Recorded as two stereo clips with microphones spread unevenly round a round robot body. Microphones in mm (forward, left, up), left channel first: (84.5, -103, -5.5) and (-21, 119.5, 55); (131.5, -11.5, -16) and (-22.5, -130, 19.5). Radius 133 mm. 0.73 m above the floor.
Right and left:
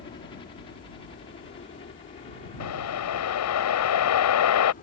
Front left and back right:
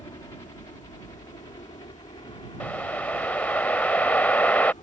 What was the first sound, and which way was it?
A helicopter, 20° right.